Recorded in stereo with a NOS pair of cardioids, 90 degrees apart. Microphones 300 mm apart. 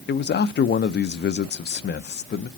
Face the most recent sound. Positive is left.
turn(degrees=35)